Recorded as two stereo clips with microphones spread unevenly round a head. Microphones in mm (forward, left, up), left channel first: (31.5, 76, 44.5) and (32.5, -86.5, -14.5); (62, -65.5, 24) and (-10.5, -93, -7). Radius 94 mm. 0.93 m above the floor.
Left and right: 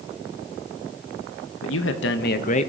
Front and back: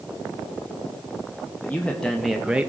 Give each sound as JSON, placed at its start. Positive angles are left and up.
{"t": 1.6, "sound": "a man speaking", "azimuth_deg": 105, "distance_m": 0.9}